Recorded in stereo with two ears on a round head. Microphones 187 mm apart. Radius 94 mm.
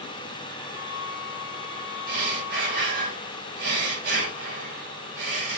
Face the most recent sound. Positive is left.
turn(degrees=-50)  # may be behind; listen again after turning